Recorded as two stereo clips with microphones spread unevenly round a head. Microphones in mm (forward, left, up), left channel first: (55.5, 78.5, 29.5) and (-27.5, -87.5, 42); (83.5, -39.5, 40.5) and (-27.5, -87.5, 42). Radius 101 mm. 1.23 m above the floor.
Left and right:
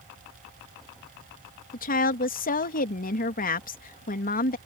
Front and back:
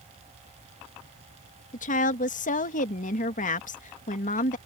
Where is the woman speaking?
20° left.